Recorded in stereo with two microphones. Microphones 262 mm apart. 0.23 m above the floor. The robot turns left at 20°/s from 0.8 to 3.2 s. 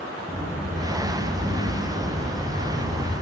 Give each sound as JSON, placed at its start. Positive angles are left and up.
{"t": 0.3, "sound": "a sliding door", "side_deg": 0, "distance_m": 1.5}